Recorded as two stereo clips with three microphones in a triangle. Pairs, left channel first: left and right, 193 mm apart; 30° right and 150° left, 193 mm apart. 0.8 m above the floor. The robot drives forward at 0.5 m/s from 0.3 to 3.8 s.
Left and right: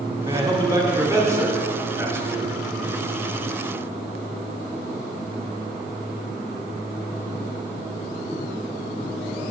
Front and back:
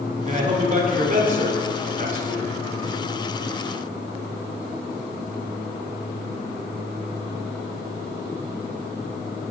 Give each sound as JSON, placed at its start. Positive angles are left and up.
{"t": 0.2, "sound": "a man speaking", "azimuth_deg": -160, "distance_m": 1.5}